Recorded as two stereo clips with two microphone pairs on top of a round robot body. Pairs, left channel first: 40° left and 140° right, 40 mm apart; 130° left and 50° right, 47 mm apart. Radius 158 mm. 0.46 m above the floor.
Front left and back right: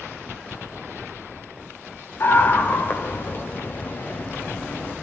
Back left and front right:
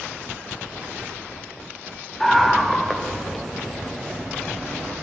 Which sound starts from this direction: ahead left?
A scream, at 2.2 s.